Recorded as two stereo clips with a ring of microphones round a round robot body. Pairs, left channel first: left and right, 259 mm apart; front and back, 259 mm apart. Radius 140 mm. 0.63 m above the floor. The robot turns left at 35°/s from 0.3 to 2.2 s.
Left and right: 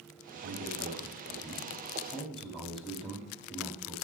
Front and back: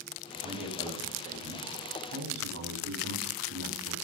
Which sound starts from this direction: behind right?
A man speaking, at 0.4 s.